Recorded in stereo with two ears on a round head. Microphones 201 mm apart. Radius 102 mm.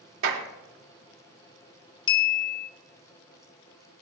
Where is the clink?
20° left (ahead or behind), 0.8 m.